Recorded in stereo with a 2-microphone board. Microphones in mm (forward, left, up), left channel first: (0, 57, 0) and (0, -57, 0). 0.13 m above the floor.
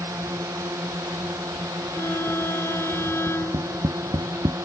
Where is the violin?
25° left (ahead or behind).